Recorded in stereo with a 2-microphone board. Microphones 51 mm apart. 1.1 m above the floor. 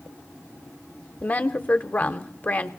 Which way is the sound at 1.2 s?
30° left (ahead or behind).